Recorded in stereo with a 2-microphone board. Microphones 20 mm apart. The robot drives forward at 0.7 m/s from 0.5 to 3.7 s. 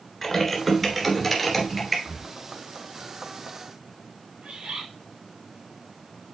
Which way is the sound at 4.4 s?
65° right (ahead or behind).